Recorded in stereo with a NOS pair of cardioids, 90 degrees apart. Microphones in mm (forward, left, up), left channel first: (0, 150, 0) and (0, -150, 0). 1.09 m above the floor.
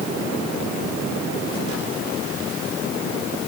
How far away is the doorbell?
I don't hear a doorbell.